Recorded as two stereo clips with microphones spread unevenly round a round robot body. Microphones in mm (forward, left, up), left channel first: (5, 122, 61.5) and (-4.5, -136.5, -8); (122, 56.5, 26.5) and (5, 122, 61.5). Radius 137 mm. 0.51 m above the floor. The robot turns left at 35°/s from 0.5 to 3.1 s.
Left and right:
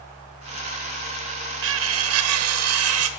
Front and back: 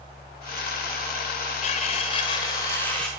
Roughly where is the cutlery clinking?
Ahead right.